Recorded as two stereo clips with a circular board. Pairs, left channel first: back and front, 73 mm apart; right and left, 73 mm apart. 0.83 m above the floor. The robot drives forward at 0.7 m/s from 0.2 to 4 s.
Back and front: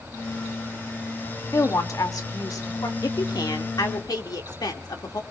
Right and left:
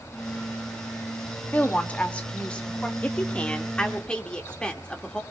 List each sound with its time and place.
1.5 s a woman speaking: 155° right, 1.6 m; by 2.9 s 165° right, 2.5 m
3.0 s a woman speaking: 160° right, 1.3 m; by 5.2 s 165° right, 1.9 m